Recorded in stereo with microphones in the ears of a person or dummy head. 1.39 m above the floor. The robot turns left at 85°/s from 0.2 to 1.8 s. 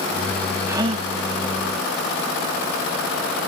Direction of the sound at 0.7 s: 10° right.